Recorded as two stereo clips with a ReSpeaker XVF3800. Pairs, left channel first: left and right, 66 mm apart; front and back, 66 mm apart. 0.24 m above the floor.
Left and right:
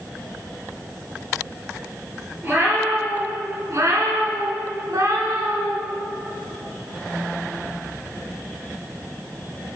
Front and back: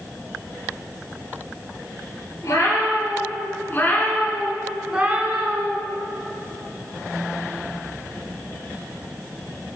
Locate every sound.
2.4 s a cat meowing: 35° right, 2.5 m; by 5.8 s 145° right, 1.3 m